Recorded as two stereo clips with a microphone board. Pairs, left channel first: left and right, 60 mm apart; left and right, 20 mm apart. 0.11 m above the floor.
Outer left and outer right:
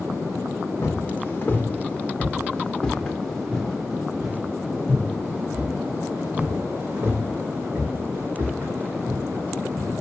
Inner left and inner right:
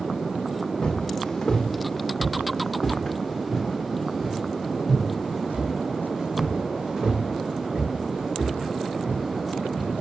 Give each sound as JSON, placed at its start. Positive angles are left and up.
{"t": 0.8, "sound": "footsteps", "side_deg": 40, "distance_m": 2.5}